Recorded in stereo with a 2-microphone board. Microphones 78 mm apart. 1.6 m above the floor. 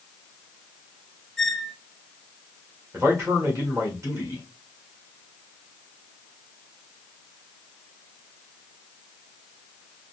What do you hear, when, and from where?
1.4 s a squeak: 5° left (ahead or behind), 0.5 m
2.9 s a man speaking: 35° right (ahead or behind), 1.5 m